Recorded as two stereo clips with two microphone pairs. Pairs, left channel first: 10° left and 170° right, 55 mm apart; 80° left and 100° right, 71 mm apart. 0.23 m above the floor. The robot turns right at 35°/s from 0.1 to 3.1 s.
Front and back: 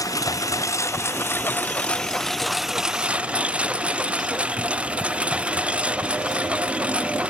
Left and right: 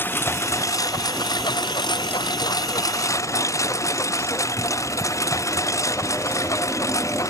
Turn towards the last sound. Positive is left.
turn(degrees=120)